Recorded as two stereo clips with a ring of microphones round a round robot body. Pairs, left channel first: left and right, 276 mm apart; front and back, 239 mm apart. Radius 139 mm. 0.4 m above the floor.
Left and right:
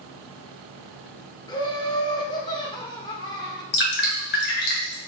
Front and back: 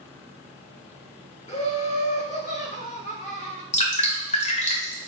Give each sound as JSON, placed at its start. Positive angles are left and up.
{"t": 1.5, "sound": "laughter", "azimuth_deg": 30, "distance_m": 1.6}
{"t": 3.7, "sound": "dripping", "azimuth_deg": 50, "distance_m": 1.9}